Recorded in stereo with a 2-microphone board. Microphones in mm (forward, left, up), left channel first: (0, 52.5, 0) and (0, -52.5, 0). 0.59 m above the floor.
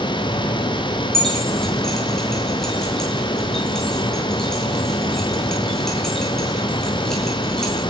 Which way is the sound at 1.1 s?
5° left (ahead or behind).